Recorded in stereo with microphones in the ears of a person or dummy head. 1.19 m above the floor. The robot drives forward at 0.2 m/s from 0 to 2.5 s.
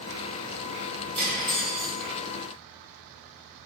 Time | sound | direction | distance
1.1 | cutlery clinking | 65° right (ahead or behind) | 1.1 m